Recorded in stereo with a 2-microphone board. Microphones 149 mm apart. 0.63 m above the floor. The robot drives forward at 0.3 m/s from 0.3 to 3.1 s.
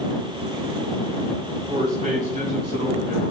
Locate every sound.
1.7 s a man speaking: 60° right (ahead or behind), 1.6 m; by 3.3 s 50° right (ahead or behind), 1.8 m